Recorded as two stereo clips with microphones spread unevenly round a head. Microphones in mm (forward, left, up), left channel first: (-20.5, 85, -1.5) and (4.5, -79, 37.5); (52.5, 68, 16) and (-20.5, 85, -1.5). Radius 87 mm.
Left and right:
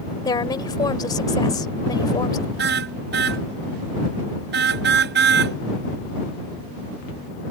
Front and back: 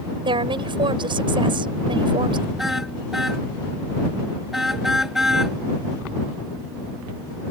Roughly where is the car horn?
Right.